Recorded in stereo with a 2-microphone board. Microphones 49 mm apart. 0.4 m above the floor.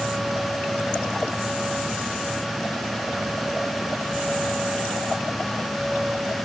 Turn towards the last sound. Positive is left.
No sound to turn to.